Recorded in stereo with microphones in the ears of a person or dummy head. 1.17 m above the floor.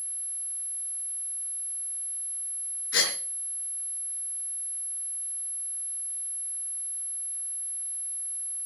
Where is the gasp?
75° left (ahead or behind), 4.5 m.